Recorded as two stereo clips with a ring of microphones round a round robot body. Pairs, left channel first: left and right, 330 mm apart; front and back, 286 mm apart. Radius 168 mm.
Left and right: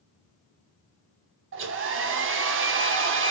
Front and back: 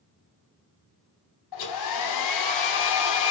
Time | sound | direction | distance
1.5 | a hair dryer | 35° right | 0.7 m